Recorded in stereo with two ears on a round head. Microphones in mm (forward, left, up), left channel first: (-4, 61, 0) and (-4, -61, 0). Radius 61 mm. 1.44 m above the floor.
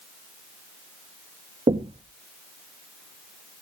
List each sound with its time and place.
1.7 s knocking: 40° right (ahead or behind), 1.2 m